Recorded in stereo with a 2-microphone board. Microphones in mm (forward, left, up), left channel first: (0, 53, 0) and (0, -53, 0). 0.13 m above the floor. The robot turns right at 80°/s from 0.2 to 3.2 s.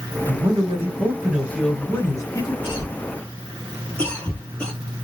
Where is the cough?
50° left (ahead or behind), 2.5 m; by 4.7 s 10° left (ahead or behind), 2.5 m.